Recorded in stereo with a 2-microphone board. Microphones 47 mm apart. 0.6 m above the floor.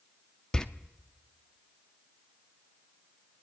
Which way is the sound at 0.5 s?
20° left (ahead or behind).